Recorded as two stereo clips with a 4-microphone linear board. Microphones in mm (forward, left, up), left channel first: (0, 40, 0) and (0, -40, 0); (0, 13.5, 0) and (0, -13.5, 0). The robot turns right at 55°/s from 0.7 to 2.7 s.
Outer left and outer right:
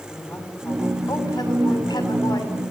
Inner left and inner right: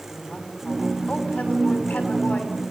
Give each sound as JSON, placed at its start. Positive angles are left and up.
{"t": 0.1, "sound": "a woman speaking", "azimuth_deg": 20, "distance_m": 6.5}